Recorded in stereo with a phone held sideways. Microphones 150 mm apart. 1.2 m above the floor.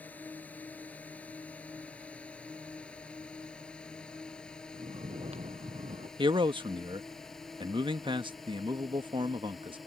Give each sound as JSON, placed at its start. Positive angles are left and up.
{"t": 0.0, "sound": "a drone", "side_deg": 10}
{"t": 4.7, "sound": "snoring", "side_deg": -45}
{"t": 6.2, "sound": "a man speaking", "side_deg": -35}